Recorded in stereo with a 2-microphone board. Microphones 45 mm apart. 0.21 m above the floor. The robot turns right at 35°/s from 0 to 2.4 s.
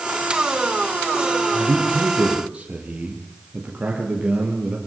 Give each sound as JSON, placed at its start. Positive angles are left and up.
{"t": 1.5, "sound": "a man speaking", "azimuth_deg": -60, "distance_m": 6.0}